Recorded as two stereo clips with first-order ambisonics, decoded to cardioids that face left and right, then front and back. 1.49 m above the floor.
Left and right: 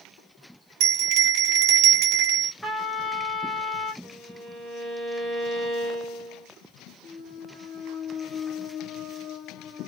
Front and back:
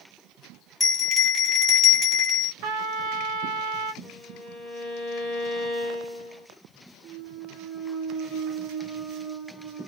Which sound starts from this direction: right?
A bell, at 0.8 s.